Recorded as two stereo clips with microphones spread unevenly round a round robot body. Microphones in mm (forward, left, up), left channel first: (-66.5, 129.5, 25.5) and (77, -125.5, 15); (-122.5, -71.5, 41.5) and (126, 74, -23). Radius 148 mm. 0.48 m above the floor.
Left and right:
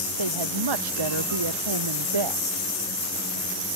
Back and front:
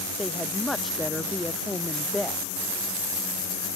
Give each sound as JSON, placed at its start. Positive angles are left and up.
{"t": 0.2, "sound": "a woman speaking", "azimuth_deg": -60}